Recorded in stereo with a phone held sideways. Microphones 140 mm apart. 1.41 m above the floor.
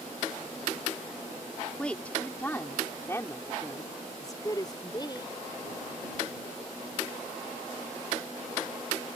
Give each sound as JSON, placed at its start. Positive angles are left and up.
{"t": 1.8, "sound": "a woman speaking", "side_deg": 5}